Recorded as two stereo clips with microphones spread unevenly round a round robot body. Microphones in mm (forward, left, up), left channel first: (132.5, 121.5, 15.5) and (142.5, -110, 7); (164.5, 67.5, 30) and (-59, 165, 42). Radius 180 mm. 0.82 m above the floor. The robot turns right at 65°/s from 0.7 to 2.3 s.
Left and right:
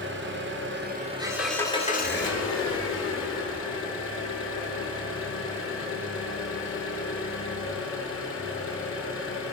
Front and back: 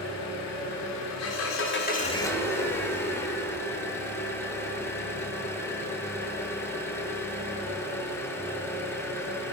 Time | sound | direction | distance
0.0 | an engine running | 45° right | 1.5 m